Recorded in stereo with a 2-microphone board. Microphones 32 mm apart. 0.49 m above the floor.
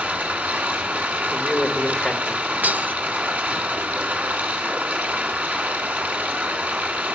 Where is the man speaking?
25° left (ahead or behind), 1.4 m.